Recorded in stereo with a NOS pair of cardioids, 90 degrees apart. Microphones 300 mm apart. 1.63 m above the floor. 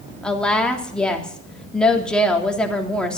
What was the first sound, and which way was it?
A woman speaking, 5° left.